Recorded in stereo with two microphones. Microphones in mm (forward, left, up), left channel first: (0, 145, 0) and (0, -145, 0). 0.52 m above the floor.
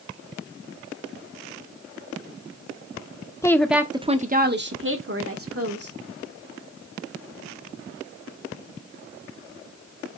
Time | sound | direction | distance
3.4 | a woman speaking | 10° left (ahead or behind) | 0.8 m